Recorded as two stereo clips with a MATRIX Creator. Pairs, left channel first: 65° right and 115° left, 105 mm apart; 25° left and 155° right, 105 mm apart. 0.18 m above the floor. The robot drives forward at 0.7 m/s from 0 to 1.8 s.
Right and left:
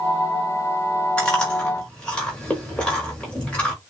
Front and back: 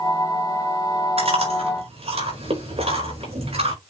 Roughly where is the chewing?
Behind right.